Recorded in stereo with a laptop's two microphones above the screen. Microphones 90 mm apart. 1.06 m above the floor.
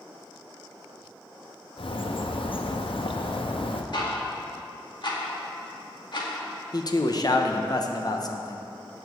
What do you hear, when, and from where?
1.8 s a bird: 70° left (ahead or behind), 0.7 m
3.9 s ticking: 55° left (ahead or behind), 2 m
6.7 s a man speaking: 45° left (ahead or behind), 0.8 m